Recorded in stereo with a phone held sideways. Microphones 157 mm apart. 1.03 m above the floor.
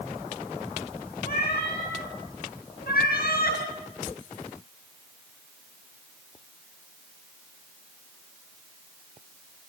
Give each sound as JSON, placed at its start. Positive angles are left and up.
{"t": 1.2, "sound": "a cat meowing", "side_deg": 85, "distance_m": 7.0}